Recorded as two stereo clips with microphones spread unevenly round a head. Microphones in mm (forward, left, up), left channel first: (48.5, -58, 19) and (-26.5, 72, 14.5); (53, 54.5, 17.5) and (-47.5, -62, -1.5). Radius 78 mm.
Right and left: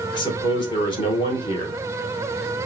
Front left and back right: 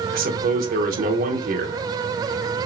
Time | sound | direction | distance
0.1 | a man speaking | 120° right | 1.0 m